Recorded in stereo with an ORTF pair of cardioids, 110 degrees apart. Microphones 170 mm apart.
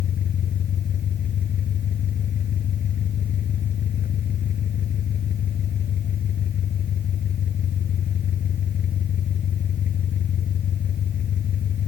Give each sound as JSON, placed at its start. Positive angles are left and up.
{"t": 0.0, "sound": "an engine running", "azimuth_deg": 50}